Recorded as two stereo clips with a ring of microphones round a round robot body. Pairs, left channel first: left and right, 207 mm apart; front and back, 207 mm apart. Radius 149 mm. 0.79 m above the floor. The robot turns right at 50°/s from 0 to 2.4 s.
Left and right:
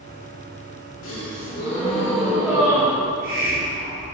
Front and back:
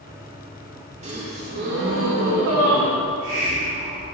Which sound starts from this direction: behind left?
A gasp, at 1.0 s.